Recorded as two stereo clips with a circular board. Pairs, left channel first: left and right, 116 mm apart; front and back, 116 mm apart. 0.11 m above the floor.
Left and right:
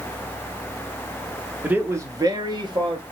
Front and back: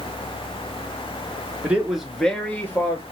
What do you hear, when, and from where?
1.6 s a man speaking: 135° right, 1.1 m; by 3.0 s 65° right, 1.8 m